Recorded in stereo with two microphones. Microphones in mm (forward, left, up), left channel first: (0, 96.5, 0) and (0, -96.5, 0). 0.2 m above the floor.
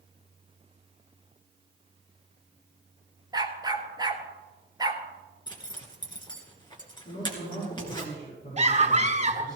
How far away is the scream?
About 1.4 m.